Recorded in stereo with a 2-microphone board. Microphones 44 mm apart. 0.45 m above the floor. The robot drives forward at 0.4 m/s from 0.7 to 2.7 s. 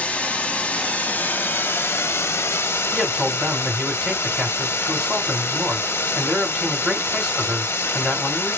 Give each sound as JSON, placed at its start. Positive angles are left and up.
{"t": 0.0, "sound": "running water", "side_deg": 35, "distance_m": 0.8}
{"t": 2.9, "sound": "a man speaking", "side_deg": -15, "distance_m": 1.9}